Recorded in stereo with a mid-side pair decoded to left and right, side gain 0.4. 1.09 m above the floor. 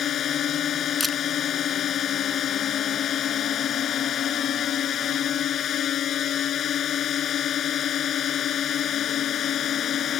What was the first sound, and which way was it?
A drone, 65° left.